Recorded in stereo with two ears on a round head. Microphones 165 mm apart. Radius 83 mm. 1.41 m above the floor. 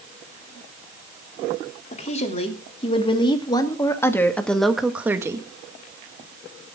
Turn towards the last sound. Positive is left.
turn(degrees=-20)  # may be behind; listen again after turning